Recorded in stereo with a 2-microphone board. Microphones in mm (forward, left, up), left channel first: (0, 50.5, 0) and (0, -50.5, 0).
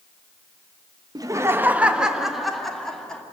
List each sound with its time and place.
1.1 s laughter: 40° right (ahead or behind), 0.9 m; by 3.2 s 10° left (ahead or behind), 2.5 m